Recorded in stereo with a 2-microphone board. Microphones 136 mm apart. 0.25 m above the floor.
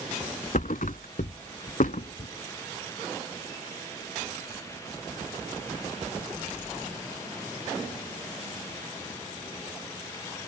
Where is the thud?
70° left (ahead or behind).